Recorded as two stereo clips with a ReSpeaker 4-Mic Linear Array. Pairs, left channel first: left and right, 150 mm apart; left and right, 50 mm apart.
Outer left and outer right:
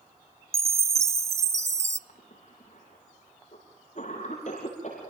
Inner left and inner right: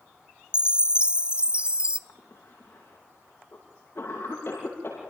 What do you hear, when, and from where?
0.5 s a chime: 20° right (ahead or behind), 0.6 m
2.1 s a cough: 55° left (ahead or behind), 8.5 m